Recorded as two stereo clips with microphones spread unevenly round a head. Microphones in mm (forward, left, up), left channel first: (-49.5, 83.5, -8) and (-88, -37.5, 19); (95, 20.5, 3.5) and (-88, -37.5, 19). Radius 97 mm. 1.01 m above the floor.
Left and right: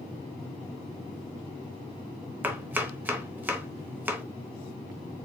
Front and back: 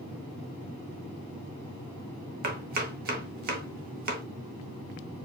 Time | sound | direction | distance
2.4 | chopping | 165° right | 0.9 m